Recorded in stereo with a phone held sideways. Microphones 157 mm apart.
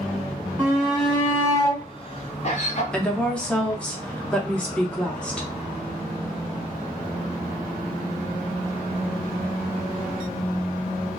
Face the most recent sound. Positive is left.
turn(degrees=5)  # may be behind; listen again after turning